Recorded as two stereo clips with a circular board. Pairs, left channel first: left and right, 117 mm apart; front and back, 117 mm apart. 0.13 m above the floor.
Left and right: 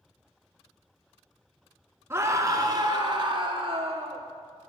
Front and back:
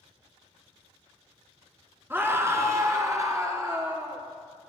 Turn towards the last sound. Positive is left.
turn(degrees=-120)